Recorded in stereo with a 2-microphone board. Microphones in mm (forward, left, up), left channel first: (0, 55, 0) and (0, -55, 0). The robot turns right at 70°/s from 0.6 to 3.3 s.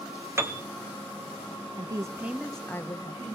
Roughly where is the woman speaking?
Ahead right.